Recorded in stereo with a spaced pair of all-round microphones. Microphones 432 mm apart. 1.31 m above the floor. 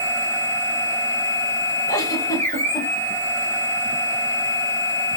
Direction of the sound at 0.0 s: 5° left (ahead or behind).